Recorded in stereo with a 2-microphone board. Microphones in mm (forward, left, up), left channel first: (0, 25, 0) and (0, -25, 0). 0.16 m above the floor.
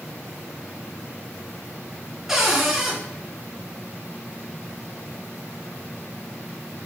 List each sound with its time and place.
2.3 s a cupboard door: 5° right (ahead or behind), 2.0 m